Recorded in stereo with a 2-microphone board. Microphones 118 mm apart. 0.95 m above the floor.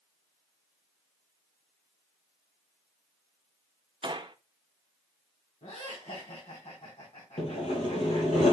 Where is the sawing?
70° left (ahead or behind), 3.5 m.